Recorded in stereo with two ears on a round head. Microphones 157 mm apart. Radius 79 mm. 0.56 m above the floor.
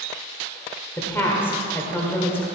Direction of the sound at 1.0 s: 10° left (ahead or behind).